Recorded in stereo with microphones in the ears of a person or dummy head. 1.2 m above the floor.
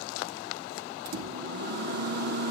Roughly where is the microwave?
Right.